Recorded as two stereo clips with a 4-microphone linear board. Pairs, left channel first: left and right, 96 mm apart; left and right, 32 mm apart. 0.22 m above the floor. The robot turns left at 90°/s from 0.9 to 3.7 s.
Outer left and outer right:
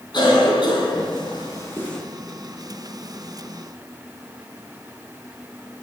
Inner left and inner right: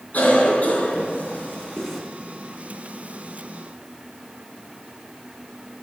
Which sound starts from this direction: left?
A cough, at 0.1 s.